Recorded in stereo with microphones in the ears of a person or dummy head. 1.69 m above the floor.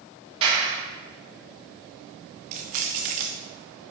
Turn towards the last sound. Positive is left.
turn(degrees=-25)  # may be behind; listen again after turning